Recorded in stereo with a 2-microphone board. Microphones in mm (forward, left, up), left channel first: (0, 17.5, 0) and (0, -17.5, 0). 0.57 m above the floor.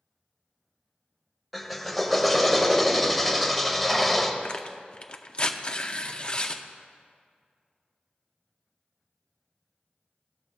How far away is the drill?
About 0.8 m.